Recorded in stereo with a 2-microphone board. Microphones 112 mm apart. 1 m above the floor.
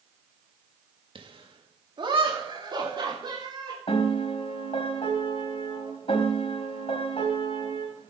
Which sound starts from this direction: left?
A piano, at 3.9 s.